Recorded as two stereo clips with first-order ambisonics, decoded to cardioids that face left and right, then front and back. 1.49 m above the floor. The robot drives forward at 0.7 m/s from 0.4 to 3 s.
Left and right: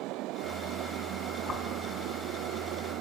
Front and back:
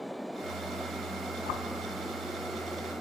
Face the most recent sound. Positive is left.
turn(degrees=45)